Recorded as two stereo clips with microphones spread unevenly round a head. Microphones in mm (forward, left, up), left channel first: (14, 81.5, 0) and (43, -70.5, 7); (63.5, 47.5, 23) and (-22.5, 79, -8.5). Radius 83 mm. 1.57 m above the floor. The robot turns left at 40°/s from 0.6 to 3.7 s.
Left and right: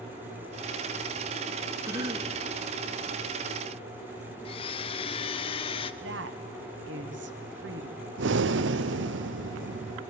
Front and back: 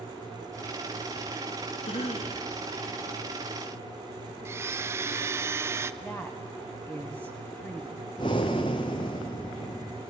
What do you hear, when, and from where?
1.9 s a cough: 5° right, 2 m; by 2.4 s 30° right, 2 m
4.5 s a blender: 90° left, 0.8 m
6.0 s a woman speaking: 105° right, 1.4 m
8.2 s breathing: 85° right, 0.7 m